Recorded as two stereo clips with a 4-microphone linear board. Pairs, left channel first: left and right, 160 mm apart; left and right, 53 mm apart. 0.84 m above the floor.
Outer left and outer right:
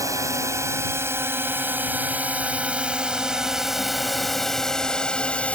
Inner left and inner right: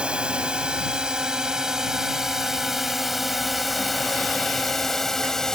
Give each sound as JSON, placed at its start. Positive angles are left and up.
{"t": 0.0, "sound": "a drone", "side_deg": -20}